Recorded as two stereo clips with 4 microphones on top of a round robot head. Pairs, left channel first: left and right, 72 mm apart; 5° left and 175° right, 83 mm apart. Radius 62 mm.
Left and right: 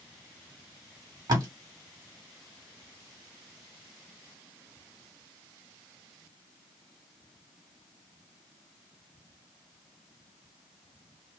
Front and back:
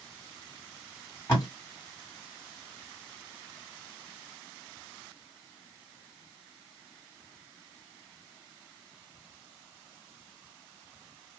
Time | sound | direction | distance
1.3 | tape being pulled | 60° right | 1.6 m